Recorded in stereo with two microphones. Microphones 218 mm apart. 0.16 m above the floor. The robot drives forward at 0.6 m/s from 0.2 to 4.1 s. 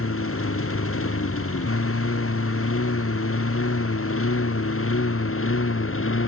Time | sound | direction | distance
0.0 | a lawn mower | 85° left | ?